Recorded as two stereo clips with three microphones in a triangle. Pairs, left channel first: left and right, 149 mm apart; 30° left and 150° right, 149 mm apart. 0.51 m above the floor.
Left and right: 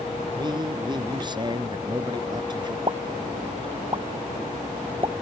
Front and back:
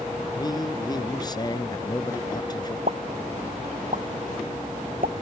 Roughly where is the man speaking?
Ahead right.